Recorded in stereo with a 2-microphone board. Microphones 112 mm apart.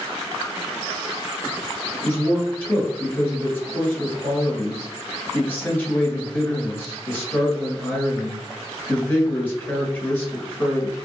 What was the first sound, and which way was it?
A man speaking, 20° left (ahead or behind).